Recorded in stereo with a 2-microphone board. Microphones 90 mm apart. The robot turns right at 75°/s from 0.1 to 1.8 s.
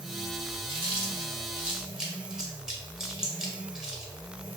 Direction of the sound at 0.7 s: 65° right (ahead or behind).